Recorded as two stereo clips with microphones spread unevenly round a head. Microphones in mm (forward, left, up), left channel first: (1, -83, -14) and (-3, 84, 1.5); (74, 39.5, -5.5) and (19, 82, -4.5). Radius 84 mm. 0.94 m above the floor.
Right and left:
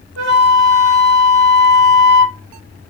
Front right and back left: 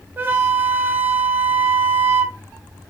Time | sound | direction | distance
0.2 | a flute | 80° left | 0.8 m